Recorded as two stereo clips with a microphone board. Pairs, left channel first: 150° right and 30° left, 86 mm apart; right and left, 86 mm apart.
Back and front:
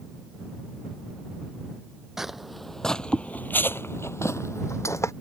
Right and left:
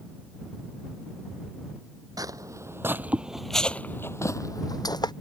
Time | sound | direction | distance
2.2 | footsteps | 115° left | ?